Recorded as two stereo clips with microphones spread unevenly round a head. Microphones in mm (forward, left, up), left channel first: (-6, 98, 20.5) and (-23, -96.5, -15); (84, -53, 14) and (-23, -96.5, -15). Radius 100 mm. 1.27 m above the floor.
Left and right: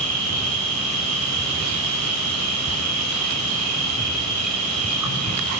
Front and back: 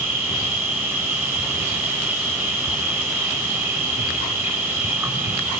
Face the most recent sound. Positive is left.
turn(degrees=-80)